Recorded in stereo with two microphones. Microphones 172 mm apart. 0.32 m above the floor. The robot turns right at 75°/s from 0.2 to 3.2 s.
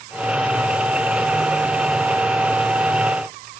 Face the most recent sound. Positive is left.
No sound to turn to.